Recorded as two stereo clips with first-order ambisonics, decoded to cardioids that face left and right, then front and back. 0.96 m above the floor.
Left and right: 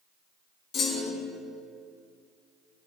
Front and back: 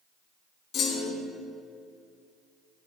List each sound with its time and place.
0.7 s a clunk: 45° left, 2.5 m